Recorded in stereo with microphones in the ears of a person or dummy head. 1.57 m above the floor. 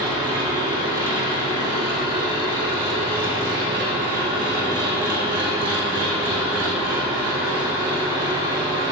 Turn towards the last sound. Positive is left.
turn(degrees=-25)  # may be behind; listen again after turning